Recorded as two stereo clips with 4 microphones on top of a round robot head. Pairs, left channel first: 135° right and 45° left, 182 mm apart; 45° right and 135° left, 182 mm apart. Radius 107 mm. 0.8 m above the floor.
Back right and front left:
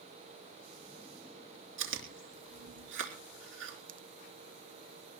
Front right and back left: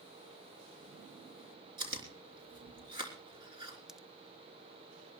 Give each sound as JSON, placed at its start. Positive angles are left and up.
{"t": 1.8, "sound": "chewing", "azimuth_deg": 65, "distance_m": 3.5}
{"t": 3.9, "sound": "a pop", "azimuth_deg": 45, "distance_m": 0.7}